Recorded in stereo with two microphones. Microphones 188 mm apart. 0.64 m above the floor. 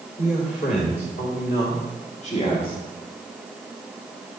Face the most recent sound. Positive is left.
turn(degrees=25)  # may be behind; listen again after turning